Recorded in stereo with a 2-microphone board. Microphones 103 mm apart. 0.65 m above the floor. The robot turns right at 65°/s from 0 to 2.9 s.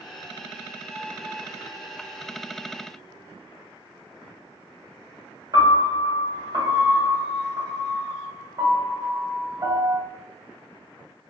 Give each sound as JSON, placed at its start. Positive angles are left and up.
{"t": 5.5, "sound": "a piano", "side_deg": -40, "distance_m": 0.7}